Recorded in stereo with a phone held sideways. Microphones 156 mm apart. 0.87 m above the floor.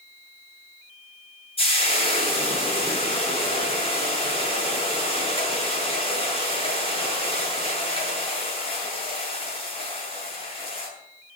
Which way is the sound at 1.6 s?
35° left (ahead or behind).